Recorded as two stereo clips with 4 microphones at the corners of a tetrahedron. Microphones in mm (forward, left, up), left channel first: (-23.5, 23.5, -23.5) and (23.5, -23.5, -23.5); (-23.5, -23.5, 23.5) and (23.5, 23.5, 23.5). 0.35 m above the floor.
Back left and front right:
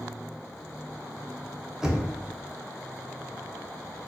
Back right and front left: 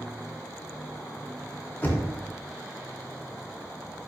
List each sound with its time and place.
1.8 s knocking: 115° right, 0.6 m